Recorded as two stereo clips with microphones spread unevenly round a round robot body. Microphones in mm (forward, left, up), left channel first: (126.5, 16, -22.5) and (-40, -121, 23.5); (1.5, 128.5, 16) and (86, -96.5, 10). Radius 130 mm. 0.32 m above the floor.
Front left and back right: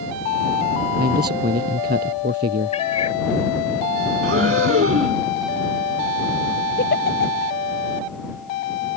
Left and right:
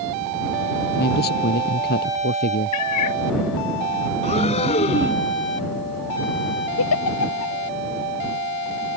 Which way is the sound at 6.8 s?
95° left.